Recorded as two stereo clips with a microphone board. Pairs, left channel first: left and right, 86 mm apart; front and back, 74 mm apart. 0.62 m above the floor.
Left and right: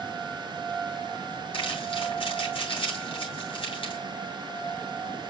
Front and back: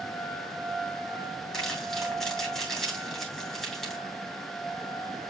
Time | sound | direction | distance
1.5 | crumpling | 85° left | 7.5 m